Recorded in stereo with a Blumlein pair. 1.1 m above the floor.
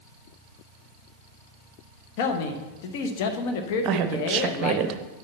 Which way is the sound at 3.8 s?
35° right.